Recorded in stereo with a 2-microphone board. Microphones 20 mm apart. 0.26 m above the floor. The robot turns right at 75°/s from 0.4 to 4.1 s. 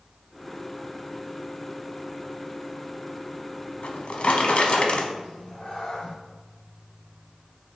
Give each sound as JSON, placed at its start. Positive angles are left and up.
{"t": 3.8, "sound": "a drawer", "side_deg": 65, "distance_m": 0.6}
{"t": 5.2, "sound": "a cat meowing", "side_deg": 70, "distance_m": 1.9}